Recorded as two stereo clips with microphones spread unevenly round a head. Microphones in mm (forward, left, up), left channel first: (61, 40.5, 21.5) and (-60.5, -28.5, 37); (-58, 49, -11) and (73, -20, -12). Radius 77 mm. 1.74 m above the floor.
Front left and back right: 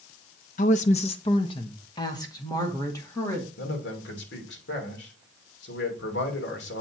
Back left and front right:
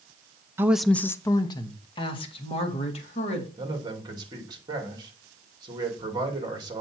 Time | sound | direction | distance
0.6 | a woman speaking | 40° left | 0.5 m
3.6 | a man speaking | 35° left | 2.5 m